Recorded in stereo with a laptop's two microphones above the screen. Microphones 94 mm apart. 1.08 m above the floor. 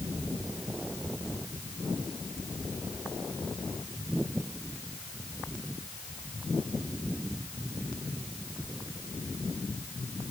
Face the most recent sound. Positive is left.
No sound to turn to.